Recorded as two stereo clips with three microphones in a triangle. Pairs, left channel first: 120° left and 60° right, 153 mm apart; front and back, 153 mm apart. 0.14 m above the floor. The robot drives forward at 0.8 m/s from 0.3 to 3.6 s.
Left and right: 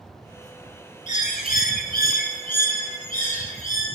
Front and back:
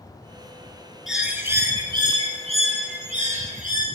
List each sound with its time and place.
1.1 s a bird: 90° left, 1.3 m; by 3.9 s 150° left, 2.5 m